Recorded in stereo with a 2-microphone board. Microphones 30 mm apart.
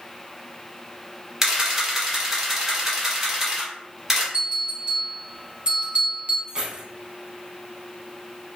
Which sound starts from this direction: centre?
A camera shutter, at 1.4 s.